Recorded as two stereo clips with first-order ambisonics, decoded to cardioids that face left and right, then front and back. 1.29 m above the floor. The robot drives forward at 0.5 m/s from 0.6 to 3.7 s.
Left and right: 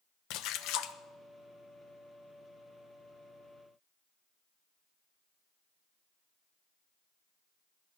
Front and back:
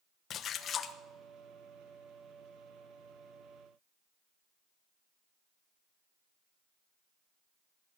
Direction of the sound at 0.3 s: 60° left.